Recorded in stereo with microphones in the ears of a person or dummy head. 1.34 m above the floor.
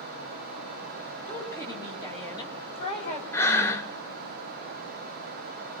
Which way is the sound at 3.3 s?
5° left (ahead or behind).